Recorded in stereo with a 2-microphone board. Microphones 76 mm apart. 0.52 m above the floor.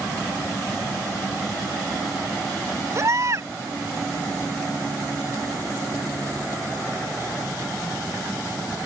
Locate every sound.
3.0 s a baby crying: 45° right (ahead or behind)